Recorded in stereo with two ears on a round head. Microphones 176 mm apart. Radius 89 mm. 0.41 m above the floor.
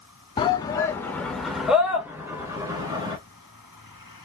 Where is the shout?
25° left (ahead or behind), 1.2 m; by 3.2 s 20° right (ahead or behind), 2.0 m.